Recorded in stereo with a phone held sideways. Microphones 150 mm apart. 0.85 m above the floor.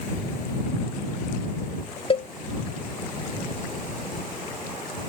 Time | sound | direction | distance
2.1 | a cowbell | 40° left (ahead or behind) | ?